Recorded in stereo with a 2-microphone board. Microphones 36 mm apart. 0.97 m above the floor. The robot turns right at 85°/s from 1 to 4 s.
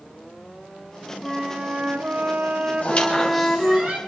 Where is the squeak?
50° left (ahead or behind), 4 m; by 4.0 s 50° right (ahead or behind), 4 m.